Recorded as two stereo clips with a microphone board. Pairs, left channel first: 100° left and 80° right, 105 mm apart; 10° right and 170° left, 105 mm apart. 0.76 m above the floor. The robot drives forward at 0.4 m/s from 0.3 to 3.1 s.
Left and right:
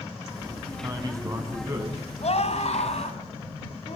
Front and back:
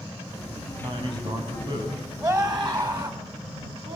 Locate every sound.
0.8 s a man speaking: 140° right, 5 m
2.2 s a scream: 115° left, 4 m; by 4.0 s 120° left, 4 m